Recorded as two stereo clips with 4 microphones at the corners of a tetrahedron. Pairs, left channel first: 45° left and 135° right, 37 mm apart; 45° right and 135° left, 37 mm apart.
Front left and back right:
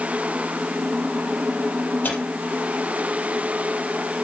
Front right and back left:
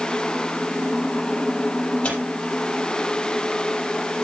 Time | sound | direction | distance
2.0 | tearing paper | 10° left | 4.5 m